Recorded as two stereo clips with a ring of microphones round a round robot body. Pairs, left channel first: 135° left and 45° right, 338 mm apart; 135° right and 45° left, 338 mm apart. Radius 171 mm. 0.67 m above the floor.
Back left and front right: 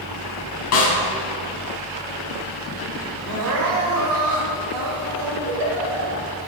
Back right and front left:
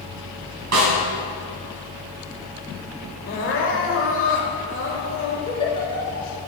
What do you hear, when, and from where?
0.7 s a snare drum: 90° left, 3.5 m
3.3 s crying: 80° right, 1.9 m
5.5 s a giggle: 60° right, 2.5 m